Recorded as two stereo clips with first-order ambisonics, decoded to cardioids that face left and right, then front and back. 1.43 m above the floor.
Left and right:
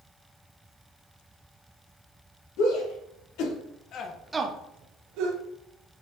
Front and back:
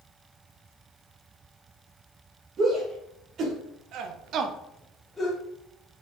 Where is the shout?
120° left, 2.5 m; by 5.4 s 80° right, 1.5 m.